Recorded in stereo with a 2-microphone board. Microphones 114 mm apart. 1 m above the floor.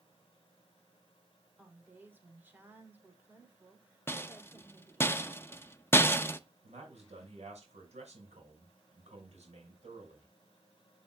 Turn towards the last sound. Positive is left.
turn(degrees=-85)